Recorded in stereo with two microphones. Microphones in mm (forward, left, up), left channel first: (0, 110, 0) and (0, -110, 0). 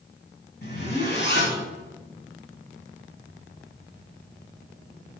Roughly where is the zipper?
Left.